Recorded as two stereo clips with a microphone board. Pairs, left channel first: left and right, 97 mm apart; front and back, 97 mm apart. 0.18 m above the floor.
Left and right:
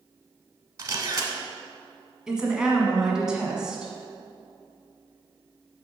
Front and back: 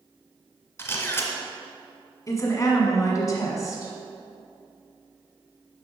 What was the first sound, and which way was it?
A camera shutter, 50° right.